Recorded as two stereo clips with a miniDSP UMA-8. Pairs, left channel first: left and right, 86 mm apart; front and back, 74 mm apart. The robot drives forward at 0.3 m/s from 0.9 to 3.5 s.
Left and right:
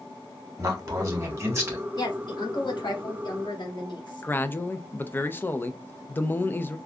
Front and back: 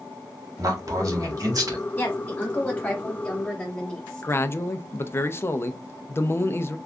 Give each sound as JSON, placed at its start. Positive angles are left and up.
{"t": 0.6, "sound": "a man speaking", "azimuth_deg": -140, "distance_m": 1.8}
{"t": 2.0, "sound": "a woman speaking", "azimuth_deg": 60, "distance_m": 2.0}
{"t": 4.2, "sound": "a man speaking", "azimuth_deg": 35, "distance_m": 0.6}